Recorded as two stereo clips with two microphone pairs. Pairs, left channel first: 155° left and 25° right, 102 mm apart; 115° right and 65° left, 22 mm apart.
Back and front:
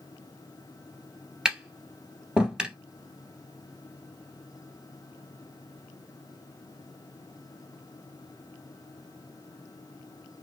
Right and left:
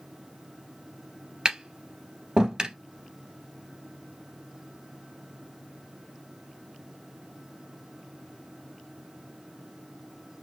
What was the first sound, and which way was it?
Tapping, 55° left.